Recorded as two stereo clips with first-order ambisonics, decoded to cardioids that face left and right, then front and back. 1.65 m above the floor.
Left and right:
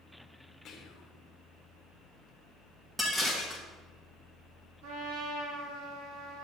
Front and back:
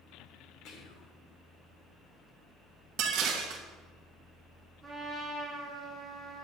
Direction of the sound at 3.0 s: 175° right.